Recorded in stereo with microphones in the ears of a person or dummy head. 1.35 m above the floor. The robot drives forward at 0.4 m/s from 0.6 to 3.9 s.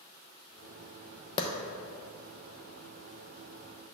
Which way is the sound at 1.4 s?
25° left (ahead or behind).